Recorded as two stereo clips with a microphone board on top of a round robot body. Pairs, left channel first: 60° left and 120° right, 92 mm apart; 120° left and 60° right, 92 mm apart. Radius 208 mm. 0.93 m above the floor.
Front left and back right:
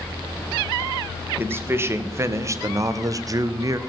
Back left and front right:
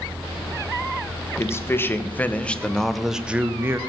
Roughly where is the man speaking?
Behind.